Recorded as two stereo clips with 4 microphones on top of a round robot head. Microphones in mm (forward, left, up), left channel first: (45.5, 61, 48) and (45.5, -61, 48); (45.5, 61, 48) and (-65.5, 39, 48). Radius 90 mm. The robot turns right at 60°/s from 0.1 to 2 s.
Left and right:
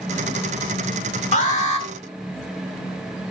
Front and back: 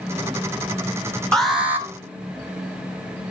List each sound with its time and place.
1.3 s an alarm: 95° left, 3 m; by 1.9 s 125° left, 3 m